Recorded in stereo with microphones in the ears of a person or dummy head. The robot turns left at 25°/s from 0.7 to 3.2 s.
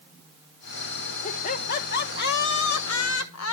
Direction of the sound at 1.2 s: 145° left.